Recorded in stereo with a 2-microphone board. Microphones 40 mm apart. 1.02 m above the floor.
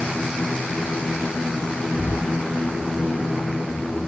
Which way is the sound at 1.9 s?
Centre (ahead or behind).